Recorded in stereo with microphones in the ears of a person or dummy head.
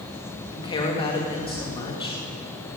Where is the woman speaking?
25° left (ahead or behind), 2.5 m.